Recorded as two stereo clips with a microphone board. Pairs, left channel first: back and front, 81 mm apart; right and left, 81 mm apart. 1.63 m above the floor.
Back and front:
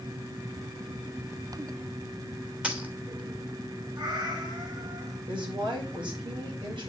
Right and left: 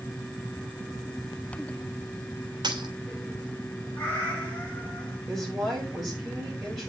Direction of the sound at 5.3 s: Straight ahead.